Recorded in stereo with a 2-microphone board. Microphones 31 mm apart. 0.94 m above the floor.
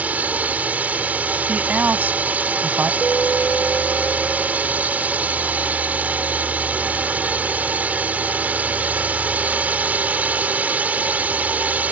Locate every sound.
0.0 s a drone: 60° right (ahead or behind)
1.5 s a woman speaking: 70° right (ahead or behind)
3.0 s an alarm: 55° left (ahead or behind)